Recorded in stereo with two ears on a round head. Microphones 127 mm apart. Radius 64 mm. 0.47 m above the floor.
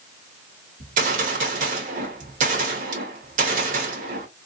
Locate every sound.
0.8 s a gunshot: 55° right (ahead or behind), 1.1 m